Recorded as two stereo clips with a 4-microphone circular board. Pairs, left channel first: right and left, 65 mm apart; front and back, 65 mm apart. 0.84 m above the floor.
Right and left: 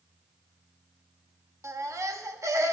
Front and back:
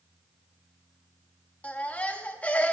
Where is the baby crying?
65° left, 0.9 m.